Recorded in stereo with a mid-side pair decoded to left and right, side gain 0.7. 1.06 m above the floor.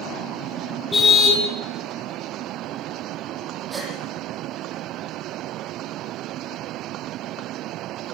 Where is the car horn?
20° left, 5.5 m.